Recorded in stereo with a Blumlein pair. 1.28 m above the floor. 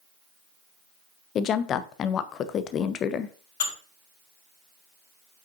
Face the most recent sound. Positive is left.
turn(degrees=55)